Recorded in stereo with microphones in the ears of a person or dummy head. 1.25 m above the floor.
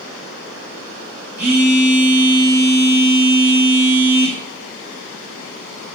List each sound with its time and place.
1.4 s a phone buzzing: 10° right (ahead or behind), 4 m